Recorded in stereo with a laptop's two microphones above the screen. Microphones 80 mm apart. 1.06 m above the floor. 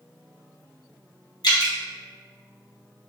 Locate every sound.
1.4 s dripping: 60° left (ahead or behind), 1.2 m